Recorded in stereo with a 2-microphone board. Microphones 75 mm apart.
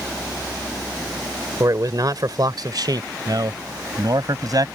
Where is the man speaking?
50° right (ahead or behind); by 4.7 s 55° right (ahead or behind).